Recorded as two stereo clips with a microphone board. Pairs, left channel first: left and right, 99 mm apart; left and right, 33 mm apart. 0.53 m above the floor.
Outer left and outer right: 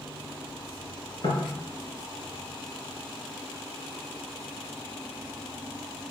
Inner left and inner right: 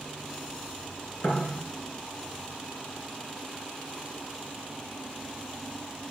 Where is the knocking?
65° left (ahead or behind), 4.5 m.